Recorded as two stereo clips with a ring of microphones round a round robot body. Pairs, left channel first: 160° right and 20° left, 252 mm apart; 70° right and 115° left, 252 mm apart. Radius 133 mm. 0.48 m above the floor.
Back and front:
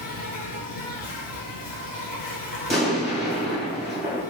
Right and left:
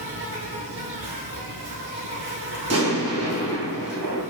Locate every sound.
0.0 s an insect: 150° left, 0.9 m
2.7 s an explosion: 110° left, 1.8 m